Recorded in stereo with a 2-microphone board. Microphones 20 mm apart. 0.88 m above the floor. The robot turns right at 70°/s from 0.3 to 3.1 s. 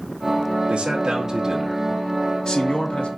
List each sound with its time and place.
0.7 s a man speaking: 75° right, 0.9 m; by 3.1 s 90° left, 0.9 m